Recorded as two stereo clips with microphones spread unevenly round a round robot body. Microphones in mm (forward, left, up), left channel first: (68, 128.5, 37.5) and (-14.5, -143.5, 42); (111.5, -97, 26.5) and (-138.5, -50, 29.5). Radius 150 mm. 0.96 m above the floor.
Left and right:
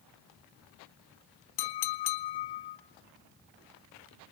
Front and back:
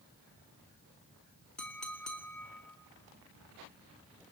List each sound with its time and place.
1.6 s a clink: 75° left, 0.8 m